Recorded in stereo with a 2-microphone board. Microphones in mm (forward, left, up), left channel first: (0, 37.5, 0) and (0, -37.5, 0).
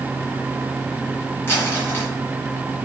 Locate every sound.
1.5 s crumpling: 30° left (ahead or behind), 3.5 m